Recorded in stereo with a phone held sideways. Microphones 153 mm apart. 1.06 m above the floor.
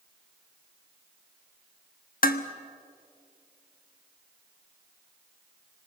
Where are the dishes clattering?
70° left (ahead or behind), 1.0 m.